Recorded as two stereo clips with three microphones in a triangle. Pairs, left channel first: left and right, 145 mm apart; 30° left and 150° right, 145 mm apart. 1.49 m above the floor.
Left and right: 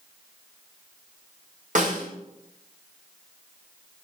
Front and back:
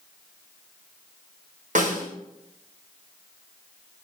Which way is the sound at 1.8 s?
120° right.